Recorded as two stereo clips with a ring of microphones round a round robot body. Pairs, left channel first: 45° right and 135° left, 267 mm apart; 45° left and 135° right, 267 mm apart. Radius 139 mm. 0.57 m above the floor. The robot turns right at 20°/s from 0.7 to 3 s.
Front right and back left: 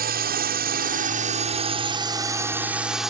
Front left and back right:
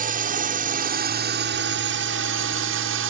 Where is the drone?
175° left; by 3.1 s 135° right.